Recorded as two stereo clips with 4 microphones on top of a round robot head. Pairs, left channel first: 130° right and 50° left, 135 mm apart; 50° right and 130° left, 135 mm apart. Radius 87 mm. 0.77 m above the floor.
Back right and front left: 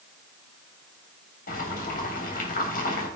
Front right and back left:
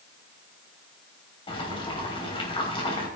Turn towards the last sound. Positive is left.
turn(degrees=-105)